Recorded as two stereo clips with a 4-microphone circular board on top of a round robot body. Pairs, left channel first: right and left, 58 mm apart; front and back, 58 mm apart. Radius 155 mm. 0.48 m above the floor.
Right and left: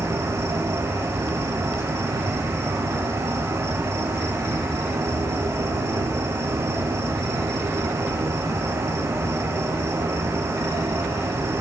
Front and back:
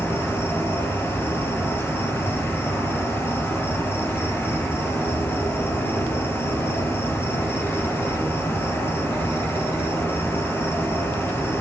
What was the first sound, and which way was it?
An insect, 50° left.